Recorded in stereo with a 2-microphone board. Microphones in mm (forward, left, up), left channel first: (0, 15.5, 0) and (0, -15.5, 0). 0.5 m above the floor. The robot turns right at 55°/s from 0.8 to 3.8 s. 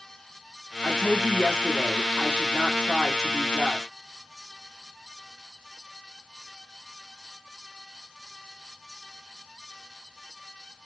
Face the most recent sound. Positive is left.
turn(degrees=-5)  # may be behind; listen again after turning